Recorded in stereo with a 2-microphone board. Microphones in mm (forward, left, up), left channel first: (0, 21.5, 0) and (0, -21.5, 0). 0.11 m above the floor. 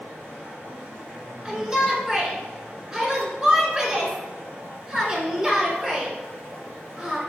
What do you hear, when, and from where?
0.0 s running water: 60° right (ahead or behind), 1.8 m
1.4 s a shout: 15° right (ahead or behind), 1.1 m